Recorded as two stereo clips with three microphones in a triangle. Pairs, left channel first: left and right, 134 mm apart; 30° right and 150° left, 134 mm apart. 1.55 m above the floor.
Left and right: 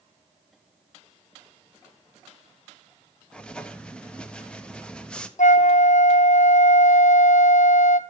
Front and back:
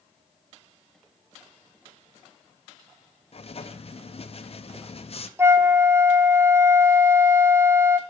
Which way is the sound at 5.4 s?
80° left.